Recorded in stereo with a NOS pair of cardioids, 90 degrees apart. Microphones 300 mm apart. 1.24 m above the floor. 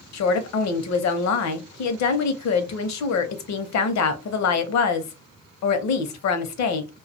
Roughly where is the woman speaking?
Ahead left.